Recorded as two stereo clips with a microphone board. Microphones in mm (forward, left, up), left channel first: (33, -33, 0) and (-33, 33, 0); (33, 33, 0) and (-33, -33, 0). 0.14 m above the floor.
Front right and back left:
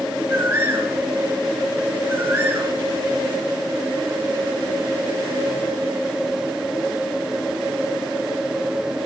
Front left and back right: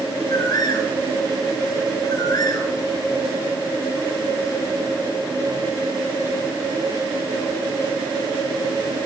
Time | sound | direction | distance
0.3 | a bird | 75° left | 2.5 m